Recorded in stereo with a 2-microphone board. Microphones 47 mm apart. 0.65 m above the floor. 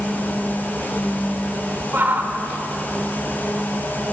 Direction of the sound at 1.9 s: 45° right (ahead or behind).